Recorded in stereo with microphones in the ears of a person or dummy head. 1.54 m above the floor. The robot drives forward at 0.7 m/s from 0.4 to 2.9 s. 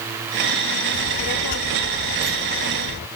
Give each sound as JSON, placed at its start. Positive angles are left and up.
{"t": 0.9, "sound": "a child speaking", "side_deg": 65}